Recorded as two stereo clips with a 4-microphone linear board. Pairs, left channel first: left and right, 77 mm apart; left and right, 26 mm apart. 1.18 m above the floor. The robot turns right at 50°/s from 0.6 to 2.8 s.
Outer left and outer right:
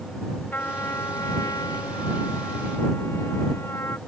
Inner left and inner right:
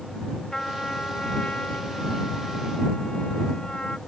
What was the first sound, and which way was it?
A trumpet, 30° left.